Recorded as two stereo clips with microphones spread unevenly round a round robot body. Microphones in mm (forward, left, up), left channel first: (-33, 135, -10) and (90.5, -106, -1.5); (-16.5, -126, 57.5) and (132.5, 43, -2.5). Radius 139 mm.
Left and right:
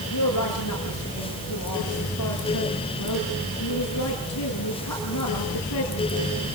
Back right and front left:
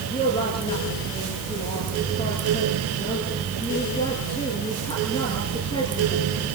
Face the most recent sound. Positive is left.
turn(degrees=155)